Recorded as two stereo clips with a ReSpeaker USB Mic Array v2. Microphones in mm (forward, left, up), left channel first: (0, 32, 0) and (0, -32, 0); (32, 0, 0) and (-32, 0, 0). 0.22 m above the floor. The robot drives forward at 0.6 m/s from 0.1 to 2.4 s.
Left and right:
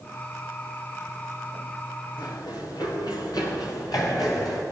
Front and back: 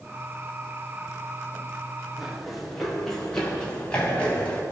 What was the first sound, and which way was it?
Running footsteps, 95° left.